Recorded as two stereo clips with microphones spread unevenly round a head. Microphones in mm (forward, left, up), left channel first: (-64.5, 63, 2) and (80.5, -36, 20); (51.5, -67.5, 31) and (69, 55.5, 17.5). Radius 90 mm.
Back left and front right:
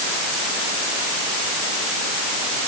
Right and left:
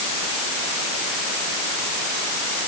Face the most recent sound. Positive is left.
No sound to turn to.